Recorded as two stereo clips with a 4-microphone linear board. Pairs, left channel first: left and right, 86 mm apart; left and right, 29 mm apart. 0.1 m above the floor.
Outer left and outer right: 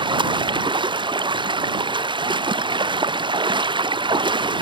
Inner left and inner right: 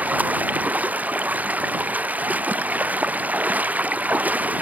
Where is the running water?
70° right (ahead or behind).